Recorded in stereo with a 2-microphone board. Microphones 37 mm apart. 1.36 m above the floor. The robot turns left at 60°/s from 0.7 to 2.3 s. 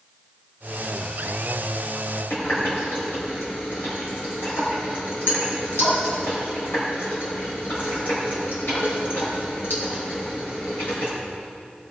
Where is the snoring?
No snoring in this recording.